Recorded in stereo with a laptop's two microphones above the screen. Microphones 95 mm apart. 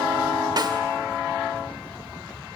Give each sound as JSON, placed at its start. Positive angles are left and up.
{"t": 0.6, "sound": "a snare drum", "side_deg": -45, "distance_m": 1.5}